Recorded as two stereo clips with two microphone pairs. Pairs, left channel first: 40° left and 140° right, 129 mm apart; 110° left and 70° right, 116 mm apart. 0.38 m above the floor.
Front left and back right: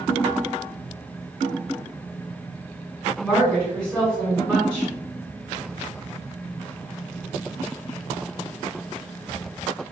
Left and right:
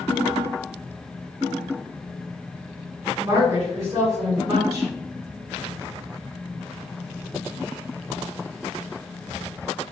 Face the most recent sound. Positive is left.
turn(degrees=-40)